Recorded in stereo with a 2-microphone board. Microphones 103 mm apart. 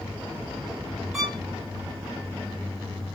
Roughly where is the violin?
Centre.